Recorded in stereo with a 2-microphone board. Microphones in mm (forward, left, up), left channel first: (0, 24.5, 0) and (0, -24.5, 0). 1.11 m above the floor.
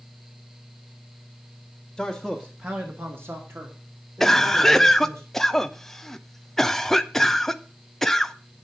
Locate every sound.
2.0 s a man speaking: 5° left (ahead or behind), 1.5 m; by 5.2 s 85° right, 4.5 m
4.2 s a cough: 5° left (ahead or behind), 0.7 m